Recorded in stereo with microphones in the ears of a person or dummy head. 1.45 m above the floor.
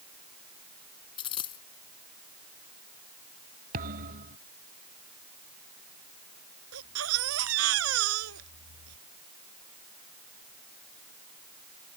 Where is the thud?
50° right (ahead or behind).